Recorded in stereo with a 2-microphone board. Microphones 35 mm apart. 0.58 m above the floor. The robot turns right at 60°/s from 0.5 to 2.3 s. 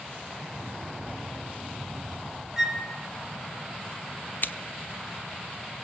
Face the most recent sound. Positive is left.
turn(degrees=60)  # may be behind; listen again after turning